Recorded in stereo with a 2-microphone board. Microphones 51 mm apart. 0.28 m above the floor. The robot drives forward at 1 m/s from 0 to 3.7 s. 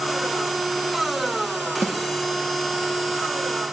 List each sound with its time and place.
1.8 s a snare drum: 40° left (ahead or behind), 5.5 m; by 2.0 s 35° left (ahead or behind), 5.5 m